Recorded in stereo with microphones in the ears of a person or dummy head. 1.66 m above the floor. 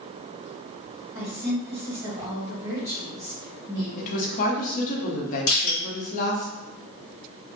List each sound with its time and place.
1.1 s a woman speaking: 15° right (ahead or behind), 1.6 m
4.0 s a woman speaking: 50° left (ahead or behind), 0.7 m
5.5 s crushing: 50° left (ahead or behind), 1.5 m